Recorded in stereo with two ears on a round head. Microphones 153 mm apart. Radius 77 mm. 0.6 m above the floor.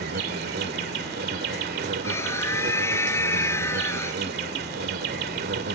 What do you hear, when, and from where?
0.0 s an insect: 60° right (ahead or behind)
2.0 s a scream: 15° left (ahead or behind)